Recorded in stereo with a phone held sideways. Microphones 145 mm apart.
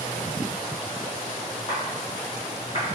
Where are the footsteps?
35° left (ahead or behind), 1.7 m; by 2.9 s 50° left (ahead or behind), 2 m.